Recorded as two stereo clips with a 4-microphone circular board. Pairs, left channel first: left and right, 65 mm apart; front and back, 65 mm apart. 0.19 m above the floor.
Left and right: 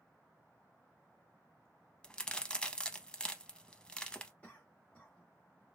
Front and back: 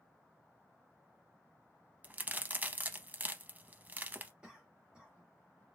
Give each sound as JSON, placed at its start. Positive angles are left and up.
{"t": 2.0, "sound": "a crack", "azimuth_deg": 150, "distance_m": 0.5}
{"t": 4.4, "sound": "a cough", "azimuth_deg": 125, "distance_m": 1.5}